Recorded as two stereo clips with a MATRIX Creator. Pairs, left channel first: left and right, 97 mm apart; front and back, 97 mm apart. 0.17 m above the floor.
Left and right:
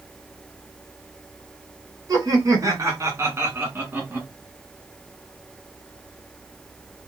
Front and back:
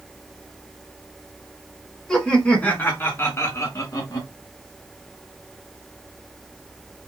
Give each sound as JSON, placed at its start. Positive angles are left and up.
{"t": 2.1, "sound": "laughter", "azimuth_deg": -80, "distance_m": 1.8}